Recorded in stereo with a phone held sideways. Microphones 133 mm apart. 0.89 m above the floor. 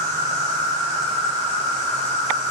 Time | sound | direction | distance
0.0 | an insect | 25° left (ahead or behind) | 1.4 m